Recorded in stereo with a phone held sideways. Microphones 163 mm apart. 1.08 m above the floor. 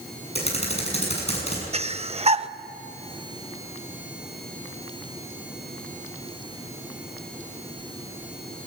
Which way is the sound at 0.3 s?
40° left (ahead or behind).